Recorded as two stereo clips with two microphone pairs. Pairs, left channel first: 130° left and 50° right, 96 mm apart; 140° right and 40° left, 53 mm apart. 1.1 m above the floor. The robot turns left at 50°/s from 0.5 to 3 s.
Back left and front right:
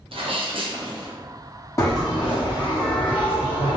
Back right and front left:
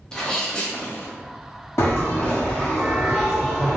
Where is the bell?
175° right, 0.9 m; by 3.8 s 125° left, 0.9 m.